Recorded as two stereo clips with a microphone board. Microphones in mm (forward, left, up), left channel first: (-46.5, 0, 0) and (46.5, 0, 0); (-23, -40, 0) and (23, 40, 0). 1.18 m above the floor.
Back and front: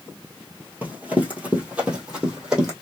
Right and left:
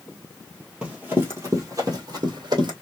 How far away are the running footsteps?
About 1.2 m.